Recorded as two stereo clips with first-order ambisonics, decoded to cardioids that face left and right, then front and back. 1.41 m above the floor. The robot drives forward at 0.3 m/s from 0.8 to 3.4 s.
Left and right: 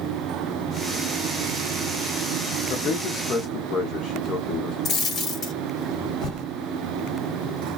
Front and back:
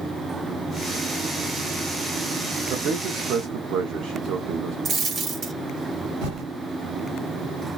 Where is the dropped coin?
145° left, 1.3 m.